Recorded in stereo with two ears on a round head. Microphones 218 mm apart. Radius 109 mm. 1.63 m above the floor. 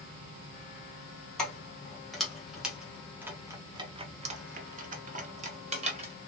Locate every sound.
1.4 s keys jangling: 5° left (ahead or behind), 1.8 m; by 6.1 s 25° right (ahead or behind), 1.2 m